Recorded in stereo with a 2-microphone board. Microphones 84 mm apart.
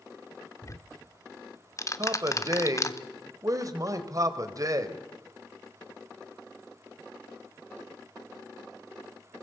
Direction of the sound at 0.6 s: 40° left (ahead or behind).